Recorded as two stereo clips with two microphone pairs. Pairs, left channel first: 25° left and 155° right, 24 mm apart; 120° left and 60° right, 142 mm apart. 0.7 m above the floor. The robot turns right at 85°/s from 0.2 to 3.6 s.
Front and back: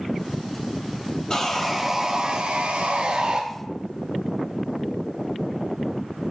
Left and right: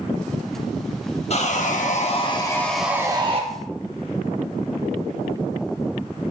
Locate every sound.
1.3 s sawing: 85° left, 0.8 m; by 3.4 s 95° right, 0.8 m